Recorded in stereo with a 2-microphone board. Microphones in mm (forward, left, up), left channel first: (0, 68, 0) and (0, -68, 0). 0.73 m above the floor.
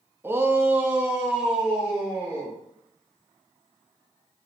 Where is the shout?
15° right (ahead or behind), 0.6 m; by 2.5 s 5° right (ahead or behind), 2 m.